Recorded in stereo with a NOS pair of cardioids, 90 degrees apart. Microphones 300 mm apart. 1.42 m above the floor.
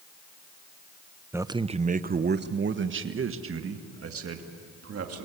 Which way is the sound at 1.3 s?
5° right.